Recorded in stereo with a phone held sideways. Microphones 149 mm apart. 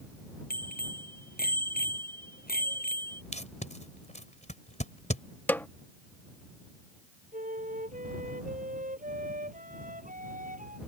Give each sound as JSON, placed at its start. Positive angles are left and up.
{"t": 0.5, "sound": "a bicycle bell", "side_deg": 70}
{"t": 3.3, "sound": "tape being pulled", "side_deg": 50}
{"t": 5.5, "sound": "a snare drum", "side_deg": 10}
{"t": 7.3, "sound": "a flute", "side_deg": -60}